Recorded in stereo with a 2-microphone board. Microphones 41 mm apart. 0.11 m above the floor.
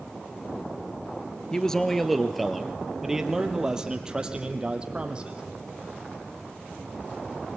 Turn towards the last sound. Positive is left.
turn(degrees=-25)  # may be behind; listen again after turning